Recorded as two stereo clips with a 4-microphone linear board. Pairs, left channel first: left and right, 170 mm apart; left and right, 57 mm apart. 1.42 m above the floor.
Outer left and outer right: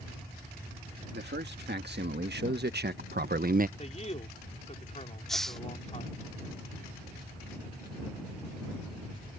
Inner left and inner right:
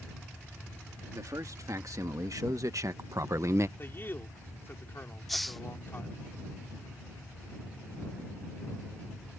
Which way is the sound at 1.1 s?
85° right.